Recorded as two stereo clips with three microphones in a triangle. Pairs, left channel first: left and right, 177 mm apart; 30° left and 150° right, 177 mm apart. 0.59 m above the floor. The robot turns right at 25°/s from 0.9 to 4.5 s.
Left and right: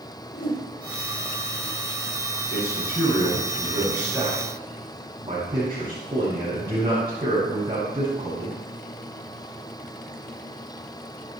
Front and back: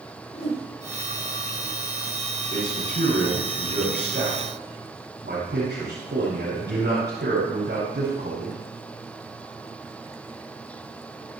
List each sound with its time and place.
0.3 s a whoosh: 80° left, 8 m
2.5 s a man speaking: 160° left, 7 m; by 8.6 s 150° right, 7 m